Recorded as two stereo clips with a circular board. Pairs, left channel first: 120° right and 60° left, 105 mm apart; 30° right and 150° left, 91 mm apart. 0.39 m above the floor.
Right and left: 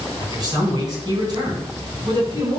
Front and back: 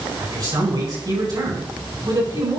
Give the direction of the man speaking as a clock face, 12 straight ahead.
8 o'clock.